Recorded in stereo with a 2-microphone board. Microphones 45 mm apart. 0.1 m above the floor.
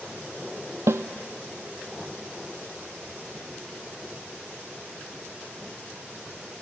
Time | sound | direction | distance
0.9 | a snare drum | 75° right (ahead or behind) | 0.5 m